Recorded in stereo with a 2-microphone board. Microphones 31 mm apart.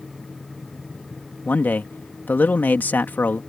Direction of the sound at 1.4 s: 65° left (ahead or behind).